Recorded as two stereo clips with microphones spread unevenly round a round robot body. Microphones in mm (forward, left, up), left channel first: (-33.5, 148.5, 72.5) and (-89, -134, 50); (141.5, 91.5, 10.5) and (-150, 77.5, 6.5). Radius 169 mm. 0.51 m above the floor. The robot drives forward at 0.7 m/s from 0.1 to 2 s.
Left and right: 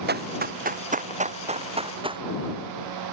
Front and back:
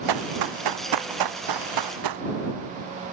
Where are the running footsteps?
160° right; by 2.2 s 175° right.